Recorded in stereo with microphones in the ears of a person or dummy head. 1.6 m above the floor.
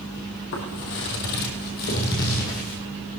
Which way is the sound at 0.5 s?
55° left (ahead or behind).